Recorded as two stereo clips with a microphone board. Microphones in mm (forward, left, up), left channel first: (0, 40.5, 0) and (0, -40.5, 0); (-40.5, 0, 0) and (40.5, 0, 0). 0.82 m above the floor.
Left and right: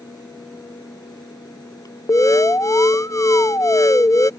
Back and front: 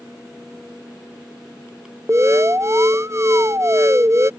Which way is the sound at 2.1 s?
50° left.